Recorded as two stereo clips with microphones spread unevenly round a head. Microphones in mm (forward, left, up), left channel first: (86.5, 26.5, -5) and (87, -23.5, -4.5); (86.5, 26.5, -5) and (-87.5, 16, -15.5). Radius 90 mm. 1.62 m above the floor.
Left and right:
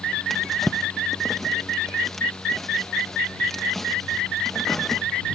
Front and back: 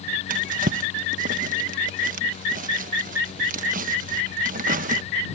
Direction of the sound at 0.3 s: 175° left.